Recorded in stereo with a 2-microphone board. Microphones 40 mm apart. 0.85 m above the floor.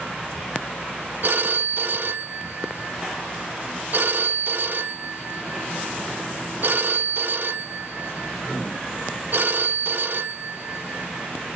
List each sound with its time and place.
1.2 s a phone ringing: 60° right (ahead or behind), 0.9 m